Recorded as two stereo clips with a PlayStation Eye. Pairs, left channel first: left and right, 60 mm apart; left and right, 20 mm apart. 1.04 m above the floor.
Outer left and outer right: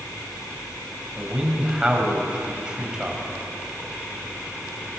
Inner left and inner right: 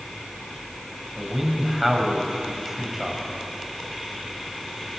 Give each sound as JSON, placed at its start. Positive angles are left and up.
{"t": 1.2, "sound": "a man speaking", "side_deg": -15, "distance_m": 6.5}